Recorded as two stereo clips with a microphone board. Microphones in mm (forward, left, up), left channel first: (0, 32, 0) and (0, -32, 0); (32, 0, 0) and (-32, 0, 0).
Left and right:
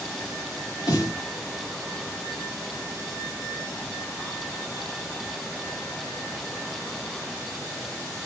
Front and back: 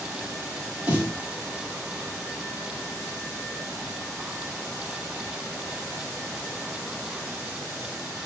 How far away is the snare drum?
About 2.5 m.